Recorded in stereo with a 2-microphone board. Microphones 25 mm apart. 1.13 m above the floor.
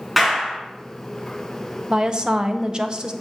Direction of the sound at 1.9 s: 35° right (ahead or behind).